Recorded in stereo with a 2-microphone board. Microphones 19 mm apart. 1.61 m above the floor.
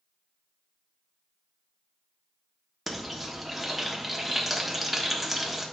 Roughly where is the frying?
Centre.